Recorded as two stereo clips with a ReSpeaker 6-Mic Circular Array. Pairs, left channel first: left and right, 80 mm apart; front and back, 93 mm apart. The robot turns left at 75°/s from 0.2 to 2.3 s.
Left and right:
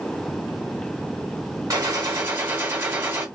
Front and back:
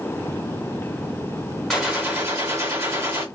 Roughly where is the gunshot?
Right.